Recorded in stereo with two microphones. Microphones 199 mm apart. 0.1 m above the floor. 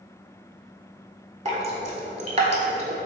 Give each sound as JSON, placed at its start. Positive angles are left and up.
{"t": 1.4, "sound": "dripping", "side_deg": -35, "distance_m": 0.5}